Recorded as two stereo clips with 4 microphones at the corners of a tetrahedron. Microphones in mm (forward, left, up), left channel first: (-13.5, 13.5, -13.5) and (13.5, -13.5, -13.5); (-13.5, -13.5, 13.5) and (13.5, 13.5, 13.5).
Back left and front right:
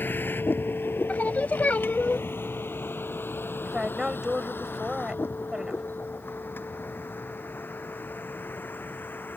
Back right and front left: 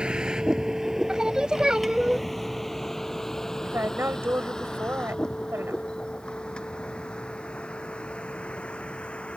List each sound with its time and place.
0.0 s a vehicle: 110° left; by 9.4 s 165° left
1.1 s singing: 110° left
3.6 s a woman speaking: 30° left